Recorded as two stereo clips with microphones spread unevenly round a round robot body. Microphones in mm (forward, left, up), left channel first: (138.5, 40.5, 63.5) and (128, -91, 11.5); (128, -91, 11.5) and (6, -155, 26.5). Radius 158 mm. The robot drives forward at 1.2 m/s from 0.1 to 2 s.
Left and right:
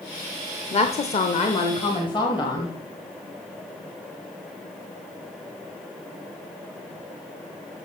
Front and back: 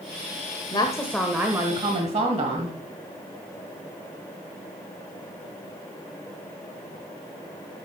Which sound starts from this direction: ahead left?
A woman speaking, at 0.7 s.